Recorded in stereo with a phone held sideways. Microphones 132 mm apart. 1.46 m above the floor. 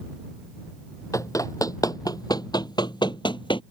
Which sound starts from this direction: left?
Running footsteps, at 1.1 s.